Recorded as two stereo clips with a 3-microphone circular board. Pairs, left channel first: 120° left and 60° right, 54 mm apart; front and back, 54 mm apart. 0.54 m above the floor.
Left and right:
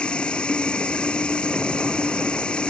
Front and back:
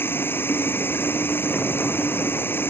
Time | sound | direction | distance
0.0 | running water | 50° left | ?